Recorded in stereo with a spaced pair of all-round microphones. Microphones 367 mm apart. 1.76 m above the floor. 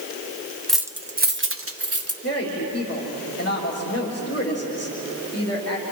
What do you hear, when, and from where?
0.7 s keys jangling: centre (ahead or behind), 0.8 m; by 2.1 s 40° right (ahead or behind), 1.6 m
2.2 s a woman speaking: 40° left (ahead or behind), 3.5 m